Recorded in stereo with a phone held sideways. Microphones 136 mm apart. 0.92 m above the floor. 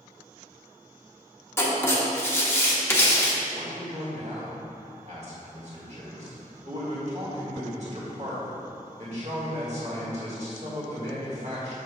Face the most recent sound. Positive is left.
turn(degrees=-55)  # may be behind; listen again after turning